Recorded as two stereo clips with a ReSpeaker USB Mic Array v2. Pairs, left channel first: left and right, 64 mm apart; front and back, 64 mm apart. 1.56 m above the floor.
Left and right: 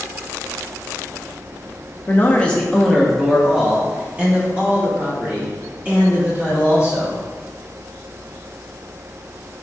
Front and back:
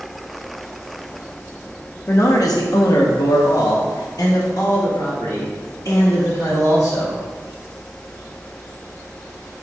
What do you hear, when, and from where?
2.1 s a man speaking: 35° left, 0.5 m; by 7.2 s 30° right, 3 m